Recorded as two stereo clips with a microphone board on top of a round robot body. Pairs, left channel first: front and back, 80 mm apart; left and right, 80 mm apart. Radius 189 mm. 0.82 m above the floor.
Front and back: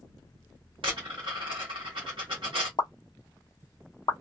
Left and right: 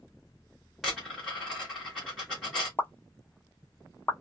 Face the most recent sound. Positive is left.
turn(degrees=25)